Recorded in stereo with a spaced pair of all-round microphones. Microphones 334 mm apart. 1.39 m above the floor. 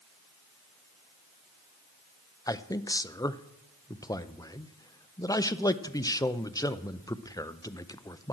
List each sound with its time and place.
2.5 s a man speaking: 10° left (ahead or behind), 0.5 m